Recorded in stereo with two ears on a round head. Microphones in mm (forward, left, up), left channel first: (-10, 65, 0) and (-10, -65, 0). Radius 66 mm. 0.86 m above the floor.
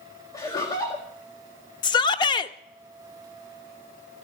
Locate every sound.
0.3 s laughter: 25° left (ahead or behind), 1.7 m
1.8 s a shout: 30° left (ahead or behind), 0.7 m